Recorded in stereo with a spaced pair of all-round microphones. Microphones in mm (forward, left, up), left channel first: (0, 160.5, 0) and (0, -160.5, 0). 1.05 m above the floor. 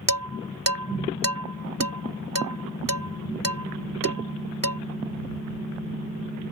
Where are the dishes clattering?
85° right.